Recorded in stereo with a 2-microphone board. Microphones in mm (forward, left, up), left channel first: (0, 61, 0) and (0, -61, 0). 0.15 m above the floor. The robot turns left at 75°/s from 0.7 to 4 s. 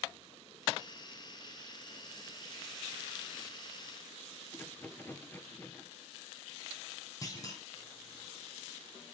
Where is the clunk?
30° left (ahead or behind), 5 m.